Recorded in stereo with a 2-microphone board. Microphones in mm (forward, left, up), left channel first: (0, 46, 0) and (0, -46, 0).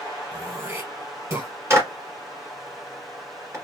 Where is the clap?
30° right (ahead or behind), 1.5 m.